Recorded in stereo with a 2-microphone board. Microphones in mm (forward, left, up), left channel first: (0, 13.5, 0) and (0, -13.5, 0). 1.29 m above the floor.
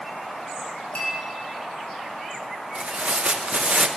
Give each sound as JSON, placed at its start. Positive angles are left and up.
{"t": 0.9, "sound": "a clink", "side_deg": 45, "distance_m": 5.0}
{"t": 2.8, "sound": "tearing paper", "side_deg": -55, "distance_m": 0.6}